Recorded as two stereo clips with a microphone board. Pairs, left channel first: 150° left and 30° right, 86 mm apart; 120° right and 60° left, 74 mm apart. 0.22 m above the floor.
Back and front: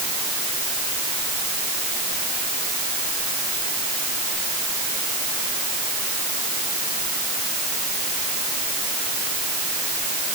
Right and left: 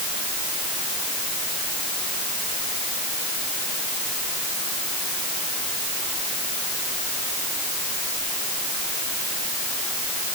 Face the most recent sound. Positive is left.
No sound to turn to.